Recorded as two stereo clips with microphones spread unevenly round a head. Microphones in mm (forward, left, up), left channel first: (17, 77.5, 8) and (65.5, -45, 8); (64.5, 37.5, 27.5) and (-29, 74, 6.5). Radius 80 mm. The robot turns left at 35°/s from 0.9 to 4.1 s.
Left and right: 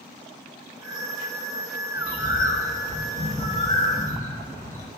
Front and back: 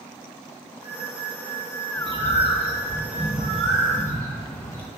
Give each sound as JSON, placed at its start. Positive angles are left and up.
{"t": 1.9, "sound": "a bird", "azimuth_deg": 120, "distance_m": 2.5}